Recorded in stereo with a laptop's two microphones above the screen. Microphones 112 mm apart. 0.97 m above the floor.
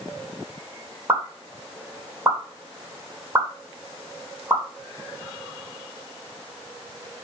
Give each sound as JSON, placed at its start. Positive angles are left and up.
{"t": 1.1, "sound": "a pop", "side_deg": -20, "distance_m": 3.0}